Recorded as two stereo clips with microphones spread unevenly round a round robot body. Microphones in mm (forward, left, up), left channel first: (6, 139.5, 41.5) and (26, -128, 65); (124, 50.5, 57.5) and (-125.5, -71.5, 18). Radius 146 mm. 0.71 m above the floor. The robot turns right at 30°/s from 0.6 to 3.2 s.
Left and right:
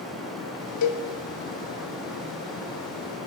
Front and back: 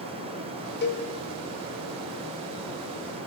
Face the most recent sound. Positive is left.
turn(degrees=155)